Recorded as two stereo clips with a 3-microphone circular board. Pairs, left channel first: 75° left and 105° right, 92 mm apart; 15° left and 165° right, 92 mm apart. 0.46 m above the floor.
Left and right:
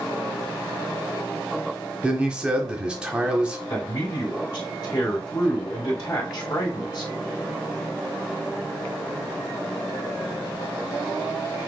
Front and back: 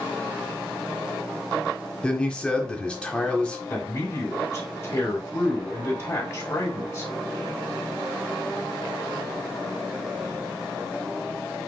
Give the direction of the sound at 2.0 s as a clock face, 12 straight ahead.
2 o'clock.